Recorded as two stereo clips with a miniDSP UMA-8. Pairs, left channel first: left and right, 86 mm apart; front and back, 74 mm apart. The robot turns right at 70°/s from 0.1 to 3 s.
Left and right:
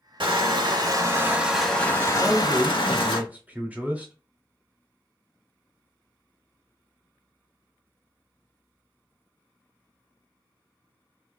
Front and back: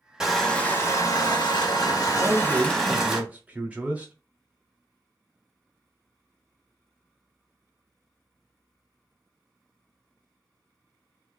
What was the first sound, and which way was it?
Crushing, 100° right.